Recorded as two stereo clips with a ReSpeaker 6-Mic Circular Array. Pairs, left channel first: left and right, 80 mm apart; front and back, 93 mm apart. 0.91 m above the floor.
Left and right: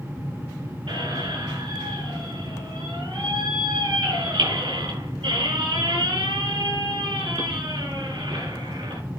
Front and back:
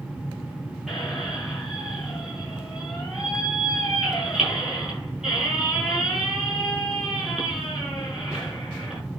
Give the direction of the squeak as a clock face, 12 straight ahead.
3 o'clock.